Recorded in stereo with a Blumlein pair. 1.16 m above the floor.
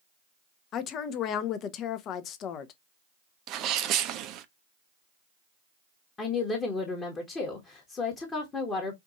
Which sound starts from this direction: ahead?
A woman speaking, at 6.2 s.